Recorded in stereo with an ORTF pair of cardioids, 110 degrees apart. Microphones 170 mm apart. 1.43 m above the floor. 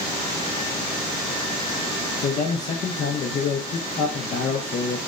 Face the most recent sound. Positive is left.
turn(degrees=45)